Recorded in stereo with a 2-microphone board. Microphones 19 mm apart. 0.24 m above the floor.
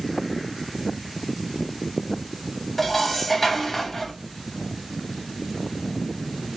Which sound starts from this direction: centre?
Dishes clattering, at 2.8 s.